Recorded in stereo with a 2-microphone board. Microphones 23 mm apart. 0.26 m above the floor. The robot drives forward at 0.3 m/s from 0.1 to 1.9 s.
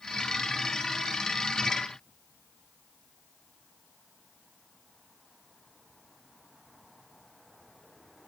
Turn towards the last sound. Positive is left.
No sound to turn to.